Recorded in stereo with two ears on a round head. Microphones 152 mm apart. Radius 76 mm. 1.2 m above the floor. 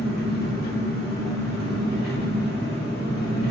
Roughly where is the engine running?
Left.